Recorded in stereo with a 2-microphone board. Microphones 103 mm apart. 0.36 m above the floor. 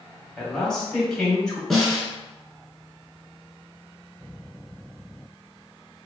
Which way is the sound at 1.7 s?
Centre (ahead or behind).